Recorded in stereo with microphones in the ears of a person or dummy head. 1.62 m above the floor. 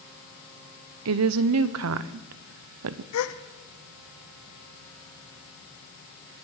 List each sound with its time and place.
1.1 s a woman speaking: 70° right (ahead or behind), 0.7 m
3.1 s a gasp: 70° left (ahead or behind), 0.8 m